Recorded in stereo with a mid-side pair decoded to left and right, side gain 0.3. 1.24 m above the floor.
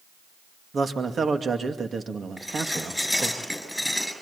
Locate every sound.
0.7 s a man speaking: 55° right, 2.5 m
2.4 s dishes clattering: 5° left, 6.5 m